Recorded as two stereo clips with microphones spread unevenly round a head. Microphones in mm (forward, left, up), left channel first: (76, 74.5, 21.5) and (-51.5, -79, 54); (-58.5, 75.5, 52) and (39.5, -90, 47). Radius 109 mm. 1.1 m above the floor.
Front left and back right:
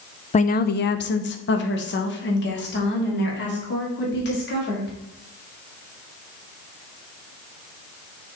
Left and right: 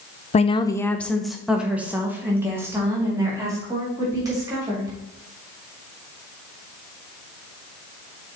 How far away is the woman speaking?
About 0.6 m.